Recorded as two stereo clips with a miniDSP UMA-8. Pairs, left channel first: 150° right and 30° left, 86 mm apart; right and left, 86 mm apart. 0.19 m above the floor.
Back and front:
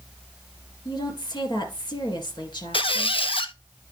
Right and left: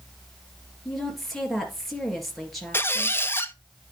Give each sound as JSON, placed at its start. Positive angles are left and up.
{"t": 0.8, "sound": "a woman speaking", "azimuth_deg": -175, "distance_m": 3.0}
{"t": 2.7, "sound": "a squeak", "azimuth_deg": -155, "distance_m": 0.6}